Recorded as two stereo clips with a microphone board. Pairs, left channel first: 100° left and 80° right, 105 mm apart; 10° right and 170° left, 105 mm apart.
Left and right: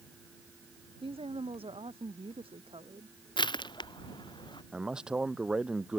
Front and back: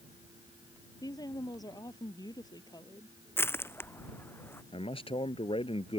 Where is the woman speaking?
60° right.